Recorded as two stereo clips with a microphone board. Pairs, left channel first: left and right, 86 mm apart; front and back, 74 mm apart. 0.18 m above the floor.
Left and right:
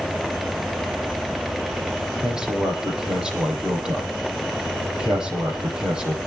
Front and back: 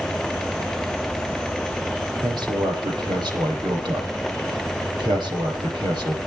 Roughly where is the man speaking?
Behind.